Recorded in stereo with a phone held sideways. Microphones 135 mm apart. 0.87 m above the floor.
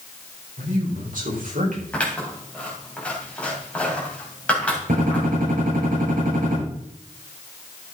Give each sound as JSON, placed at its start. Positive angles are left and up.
{"t": 0.6, "sound": "a man speaking", "side_deg": -75, "distance_m": 4.0}
{"t": 1.9, "sound": "scissors", "side_deg": 10, "distance_m": 3.0}
{"t": 4.9, "sound": "a gunshot", "side_deg": -90, "distance_m": 6.5}